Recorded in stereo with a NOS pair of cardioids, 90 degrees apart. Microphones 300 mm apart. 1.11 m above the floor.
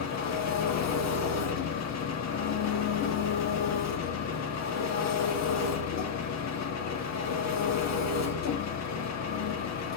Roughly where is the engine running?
Ahead left.